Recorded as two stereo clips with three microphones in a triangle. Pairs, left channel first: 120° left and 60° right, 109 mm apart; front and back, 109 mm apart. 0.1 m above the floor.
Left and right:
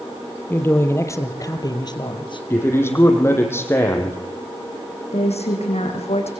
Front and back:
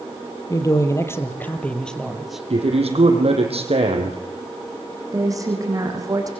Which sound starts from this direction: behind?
A man speaking, at 2.5 s.